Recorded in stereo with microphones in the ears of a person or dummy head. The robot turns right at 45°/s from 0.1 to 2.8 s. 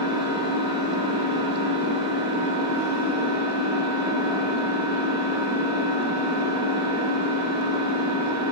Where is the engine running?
40° left, 1.6 m; by 8.5 s 160° left, 1.6 m.